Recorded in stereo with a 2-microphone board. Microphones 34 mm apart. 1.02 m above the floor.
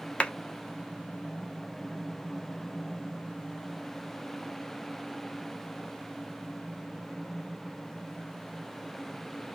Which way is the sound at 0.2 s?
30° left (ahead or behind).